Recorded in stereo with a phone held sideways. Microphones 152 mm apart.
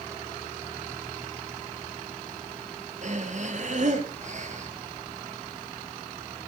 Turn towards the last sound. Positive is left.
turn(degrees=-55)  # may be behind; listen again after turning